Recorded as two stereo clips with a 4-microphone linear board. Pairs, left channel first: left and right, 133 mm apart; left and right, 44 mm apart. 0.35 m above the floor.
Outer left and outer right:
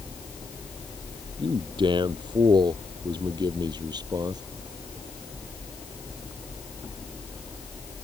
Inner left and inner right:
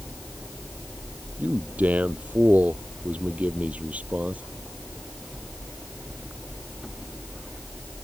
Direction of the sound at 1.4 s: 35° right (ahead or behind).